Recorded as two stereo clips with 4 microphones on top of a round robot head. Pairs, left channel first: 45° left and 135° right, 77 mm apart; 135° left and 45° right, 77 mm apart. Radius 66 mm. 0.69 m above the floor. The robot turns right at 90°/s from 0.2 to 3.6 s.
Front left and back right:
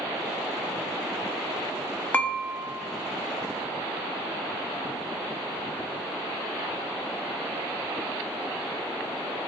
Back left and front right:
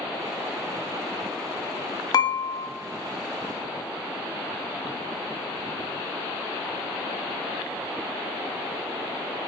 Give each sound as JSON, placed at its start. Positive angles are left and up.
{"t": 2.1, "sound": "dishes clattering", "azimuth_deg": 110, "distance_m": 0.6}